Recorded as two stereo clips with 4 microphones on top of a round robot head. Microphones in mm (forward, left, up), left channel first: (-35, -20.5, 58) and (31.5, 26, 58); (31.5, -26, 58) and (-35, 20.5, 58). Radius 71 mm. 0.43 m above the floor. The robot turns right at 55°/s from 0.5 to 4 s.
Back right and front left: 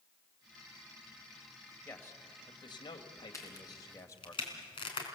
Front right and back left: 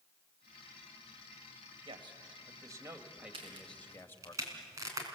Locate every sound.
1.9 s a man speaking: 145° left, 2 m; by 4.3 s 95° right, 2 m
3.3 s a crack: 160° left, 3.5 m; by 5.0 s 165° right, 3.5 m